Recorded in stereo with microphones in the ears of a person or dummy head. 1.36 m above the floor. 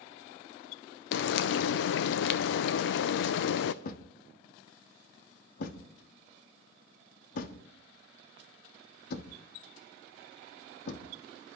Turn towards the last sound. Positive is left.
turn(degrees=55)  # may be behind; listen again after turning